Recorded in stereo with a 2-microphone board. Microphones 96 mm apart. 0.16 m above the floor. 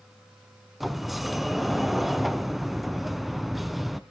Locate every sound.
0.8 s a sliding door: centre (ahead or behind), 0.8 m